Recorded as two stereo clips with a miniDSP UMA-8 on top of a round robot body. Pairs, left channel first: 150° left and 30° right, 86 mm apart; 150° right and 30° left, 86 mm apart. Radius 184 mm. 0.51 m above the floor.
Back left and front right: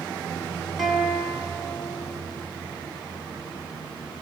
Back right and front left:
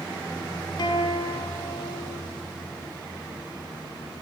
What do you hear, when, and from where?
0.8 s a guitar: 115° right, 5.5 m